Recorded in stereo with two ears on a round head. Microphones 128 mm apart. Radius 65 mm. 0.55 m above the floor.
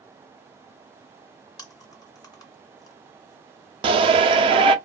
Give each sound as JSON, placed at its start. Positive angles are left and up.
{"t": 1.6, "sound": "chewing", "side_deg": 25, "distance_m": 0.9}
{"t": 3.8, "sound": "a shout", "side_deg": -40, "distance_m": 0.8}